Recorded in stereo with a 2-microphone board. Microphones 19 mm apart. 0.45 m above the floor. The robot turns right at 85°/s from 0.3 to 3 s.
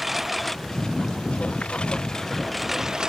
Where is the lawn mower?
5° right (ahead or behind); by 3.1 s 40° right (ahead or behind).